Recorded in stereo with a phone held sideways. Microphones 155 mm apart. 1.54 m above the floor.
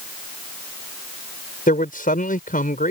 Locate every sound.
1.7 s a man speaking: 70° left (ahead or behind)